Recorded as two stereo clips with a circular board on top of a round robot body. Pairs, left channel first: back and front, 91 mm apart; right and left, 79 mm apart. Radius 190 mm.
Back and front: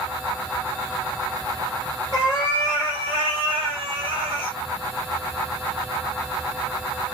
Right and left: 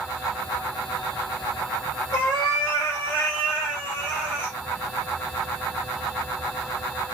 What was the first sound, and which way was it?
A cat meowing, 125° right.